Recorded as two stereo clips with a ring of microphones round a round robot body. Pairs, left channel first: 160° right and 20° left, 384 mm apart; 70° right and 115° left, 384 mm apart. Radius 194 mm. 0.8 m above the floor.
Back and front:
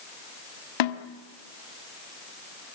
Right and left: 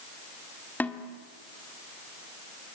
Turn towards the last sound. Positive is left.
turn(degrees=-155)